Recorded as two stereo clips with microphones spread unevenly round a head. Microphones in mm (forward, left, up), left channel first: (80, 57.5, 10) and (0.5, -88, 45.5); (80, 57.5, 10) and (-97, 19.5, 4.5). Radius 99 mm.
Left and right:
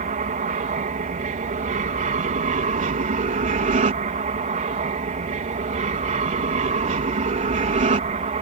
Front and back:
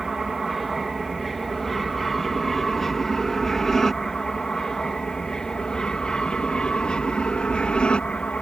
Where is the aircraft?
80° right; by 8.4 s 75° right.